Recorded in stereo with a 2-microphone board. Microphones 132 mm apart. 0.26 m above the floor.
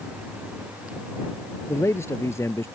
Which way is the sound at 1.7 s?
20° left (ahead or behind).